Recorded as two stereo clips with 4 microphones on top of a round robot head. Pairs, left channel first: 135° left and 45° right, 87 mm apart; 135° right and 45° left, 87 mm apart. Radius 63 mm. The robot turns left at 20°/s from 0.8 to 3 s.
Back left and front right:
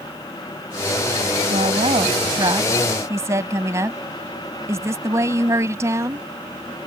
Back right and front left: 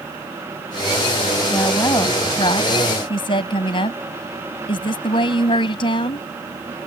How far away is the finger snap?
I don't hear a finger snap.